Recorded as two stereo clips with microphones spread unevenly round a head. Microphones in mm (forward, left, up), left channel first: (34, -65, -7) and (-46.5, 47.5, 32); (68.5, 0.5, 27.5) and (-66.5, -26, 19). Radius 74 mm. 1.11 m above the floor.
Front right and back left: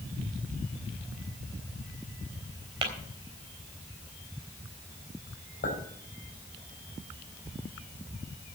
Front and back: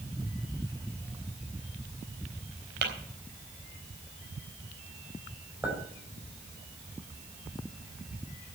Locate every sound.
2.8 s tapping: straight behind, 4 m
5.6 s a clink: 90° right, 4.5 m